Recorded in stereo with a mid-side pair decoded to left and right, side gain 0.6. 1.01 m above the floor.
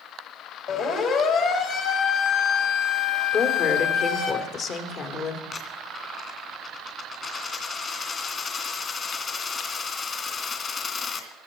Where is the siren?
55° left, 5 m.